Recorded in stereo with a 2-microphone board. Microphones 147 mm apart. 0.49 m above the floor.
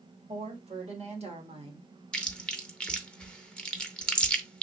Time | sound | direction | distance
0.3 | a woman speaking | 50° right (ahead or behind) | 1.8 m
2.1 | chewing | 5° left (ahead or behind) | 0.7 m